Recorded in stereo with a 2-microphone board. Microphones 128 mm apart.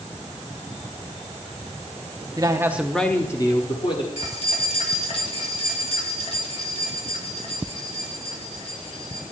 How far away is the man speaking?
About 0.9 m.